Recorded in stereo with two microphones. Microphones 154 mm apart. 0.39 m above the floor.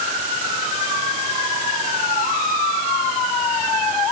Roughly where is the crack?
No crack in this recording.